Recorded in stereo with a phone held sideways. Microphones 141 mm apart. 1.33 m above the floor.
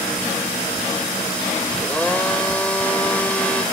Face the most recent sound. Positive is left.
turn(degrees=10)  # may be behind; listen again after turning